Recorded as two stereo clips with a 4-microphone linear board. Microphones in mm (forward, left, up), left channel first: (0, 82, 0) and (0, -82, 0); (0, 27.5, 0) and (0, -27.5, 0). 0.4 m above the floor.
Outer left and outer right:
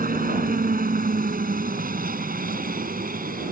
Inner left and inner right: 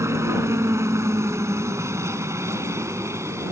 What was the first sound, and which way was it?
A helicopter, 55° right (ahead or behind).